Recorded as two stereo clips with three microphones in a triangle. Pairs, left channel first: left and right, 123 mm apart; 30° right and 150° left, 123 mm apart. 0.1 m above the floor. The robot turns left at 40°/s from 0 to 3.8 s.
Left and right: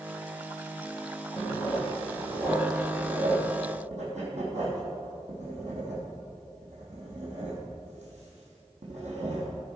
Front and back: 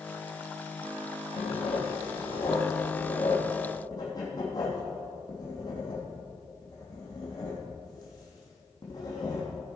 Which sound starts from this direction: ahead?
Writing, at 1.4 s.